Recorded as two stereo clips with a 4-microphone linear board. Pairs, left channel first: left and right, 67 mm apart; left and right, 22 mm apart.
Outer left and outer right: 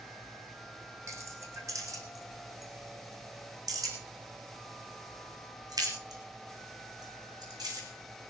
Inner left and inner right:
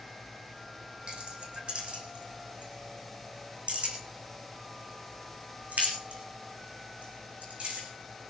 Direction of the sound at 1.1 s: 50° right (ahead or behind).